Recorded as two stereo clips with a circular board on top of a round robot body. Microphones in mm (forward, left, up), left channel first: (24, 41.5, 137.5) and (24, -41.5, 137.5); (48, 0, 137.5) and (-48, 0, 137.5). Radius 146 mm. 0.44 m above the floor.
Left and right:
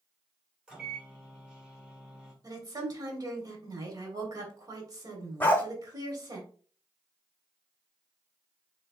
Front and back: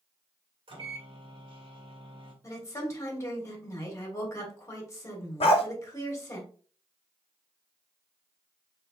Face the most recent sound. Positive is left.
turn(degrees=20)